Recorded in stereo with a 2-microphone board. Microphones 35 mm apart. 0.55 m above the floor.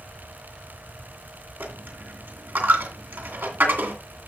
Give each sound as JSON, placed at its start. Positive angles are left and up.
{"t": 1.6, "sound": "a dropped coin", "side_deg": -80, "distance_m": 2.5}